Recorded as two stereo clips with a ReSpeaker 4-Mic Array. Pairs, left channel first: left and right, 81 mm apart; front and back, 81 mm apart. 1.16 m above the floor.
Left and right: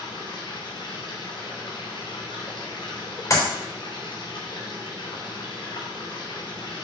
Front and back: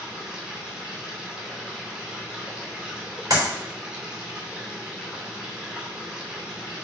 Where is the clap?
140° left, 3.5 m.